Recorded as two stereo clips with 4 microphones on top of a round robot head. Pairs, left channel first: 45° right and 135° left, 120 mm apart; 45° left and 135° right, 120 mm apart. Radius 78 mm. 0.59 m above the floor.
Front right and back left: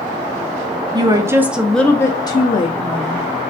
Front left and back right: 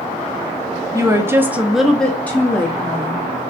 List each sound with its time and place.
0.9 s a woman speaking: 170° left, 0.9 m; by 3.2 s 20° right, 1.3 m